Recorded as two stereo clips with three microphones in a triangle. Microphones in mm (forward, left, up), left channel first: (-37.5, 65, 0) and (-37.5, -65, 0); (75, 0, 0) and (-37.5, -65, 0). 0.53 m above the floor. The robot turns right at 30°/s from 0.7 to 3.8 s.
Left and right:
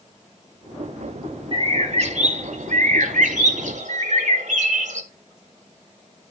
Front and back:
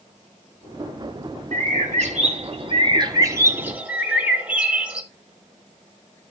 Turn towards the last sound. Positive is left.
turn(degrees=-70)